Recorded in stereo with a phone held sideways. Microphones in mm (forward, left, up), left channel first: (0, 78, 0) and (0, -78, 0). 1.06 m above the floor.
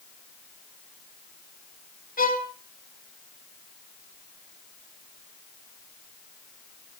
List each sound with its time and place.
2.2 s a violin: 75° left (ahead or behind), 3.5 m